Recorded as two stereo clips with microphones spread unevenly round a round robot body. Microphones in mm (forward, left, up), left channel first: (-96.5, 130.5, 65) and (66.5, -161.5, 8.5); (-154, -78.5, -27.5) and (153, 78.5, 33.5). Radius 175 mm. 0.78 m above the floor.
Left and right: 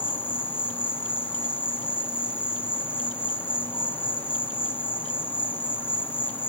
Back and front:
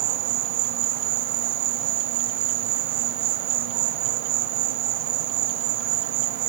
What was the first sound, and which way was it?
An insect, 30° left.